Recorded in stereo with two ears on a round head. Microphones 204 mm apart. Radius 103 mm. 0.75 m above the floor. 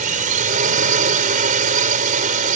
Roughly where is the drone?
Right.